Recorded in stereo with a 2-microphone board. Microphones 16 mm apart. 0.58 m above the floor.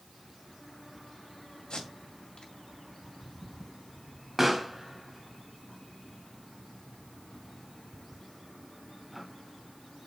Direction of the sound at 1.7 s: 75° left (ahead or behind).